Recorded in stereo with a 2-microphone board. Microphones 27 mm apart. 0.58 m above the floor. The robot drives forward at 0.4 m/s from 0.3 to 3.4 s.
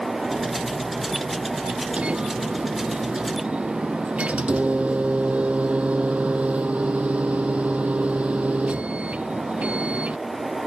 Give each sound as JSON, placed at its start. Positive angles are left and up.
{"t": 2.0, "sound": "a microwave", "side_deg": -50}